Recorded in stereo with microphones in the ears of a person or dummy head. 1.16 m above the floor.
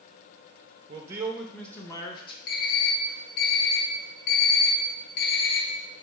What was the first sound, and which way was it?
A man speaking, 30° right (ahead or behind).